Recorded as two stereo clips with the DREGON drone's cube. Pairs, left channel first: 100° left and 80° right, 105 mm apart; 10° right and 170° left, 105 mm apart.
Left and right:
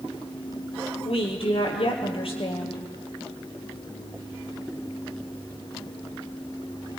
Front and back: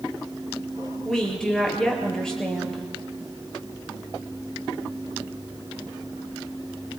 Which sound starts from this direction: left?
A woman speaking, at 1.1 s.